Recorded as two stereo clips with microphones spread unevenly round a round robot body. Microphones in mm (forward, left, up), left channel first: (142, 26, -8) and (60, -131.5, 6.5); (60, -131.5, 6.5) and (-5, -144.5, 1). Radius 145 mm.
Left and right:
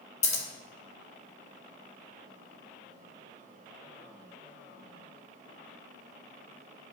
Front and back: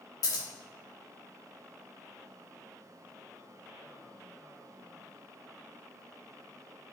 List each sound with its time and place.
0.2 s scissors: 25° left, 0.7 m